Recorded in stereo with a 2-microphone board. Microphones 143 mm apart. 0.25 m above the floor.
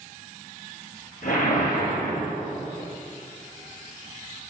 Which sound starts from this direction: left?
A whoosh, at 1.2 s.